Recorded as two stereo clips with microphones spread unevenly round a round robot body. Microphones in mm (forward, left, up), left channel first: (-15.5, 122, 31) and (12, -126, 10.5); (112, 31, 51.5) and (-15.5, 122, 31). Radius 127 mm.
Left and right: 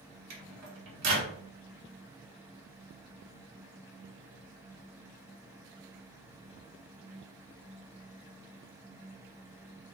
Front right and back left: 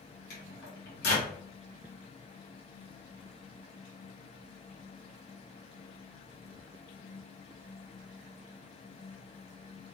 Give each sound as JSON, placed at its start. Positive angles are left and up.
{"t": 0.3, "sound": "a microwave", "azimuth_deg": -60, "distance_m": 1.3}